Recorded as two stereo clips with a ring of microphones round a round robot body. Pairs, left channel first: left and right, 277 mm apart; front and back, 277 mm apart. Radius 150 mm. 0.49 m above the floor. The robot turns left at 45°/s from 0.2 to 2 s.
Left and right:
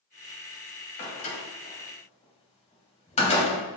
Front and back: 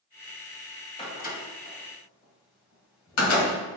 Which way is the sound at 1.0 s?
70° left.